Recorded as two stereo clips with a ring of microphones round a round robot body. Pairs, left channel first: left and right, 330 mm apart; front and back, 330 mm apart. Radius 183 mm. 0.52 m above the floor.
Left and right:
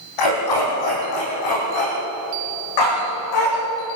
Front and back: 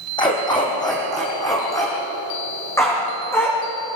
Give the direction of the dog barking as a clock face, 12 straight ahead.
9 o'clock.